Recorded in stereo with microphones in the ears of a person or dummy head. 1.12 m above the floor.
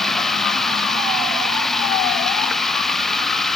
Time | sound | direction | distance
0.0 | running water | 5° left (ahead or behind) | ?